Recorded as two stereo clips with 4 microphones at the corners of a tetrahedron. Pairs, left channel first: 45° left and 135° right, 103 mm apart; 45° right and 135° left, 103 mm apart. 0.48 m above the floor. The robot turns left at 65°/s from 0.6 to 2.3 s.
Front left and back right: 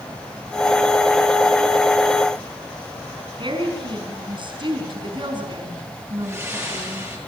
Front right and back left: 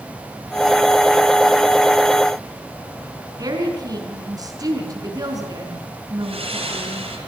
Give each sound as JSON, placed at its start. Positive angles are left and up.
{"t": 3.4, "sound": "a woman speaking", "azimuth_deg": -175, "distance_m": 5.0}
{"t": 6.2, "sound": "breathing", "azimuth_deg": 160, "distance_m": 8.5}